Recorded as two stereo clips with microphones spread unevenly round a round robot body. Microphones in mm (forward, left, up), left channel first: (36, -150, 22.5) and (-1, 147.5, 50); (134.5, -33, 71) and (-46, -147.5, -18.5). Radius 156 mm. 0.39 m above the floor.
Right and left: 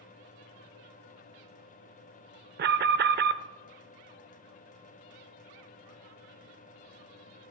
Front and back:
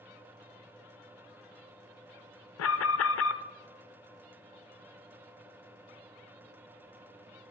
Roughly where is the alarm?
Ahead left.